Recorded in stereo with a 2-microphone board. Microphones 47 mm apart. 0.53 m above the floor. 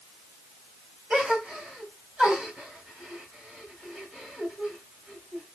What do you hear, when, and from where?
1.1 s a gasp: 20° right (ahead or behind), 2 m